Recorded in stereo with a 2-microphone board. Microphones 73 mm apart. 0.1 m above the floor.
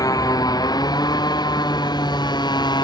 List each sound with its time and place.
0.0 s a motorcycle: 60° left (ahead or behind); by 2.8 s 85° left